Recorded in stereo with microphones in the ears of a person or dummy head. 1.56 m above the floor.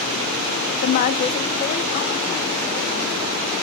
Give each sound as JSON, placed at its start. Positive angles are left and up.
{"t": 0.8, "sound": "a woman speaking", "side_deg": 40, "distance_m": 0.6}